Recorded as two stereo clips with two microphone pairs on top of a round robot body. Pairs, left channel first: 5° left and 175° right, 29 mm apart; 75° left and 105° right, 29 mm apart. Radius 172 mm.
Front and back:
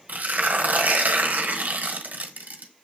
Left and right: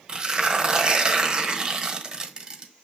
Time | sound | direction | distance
0.1 | tearing paper | 160° right | 1.2 m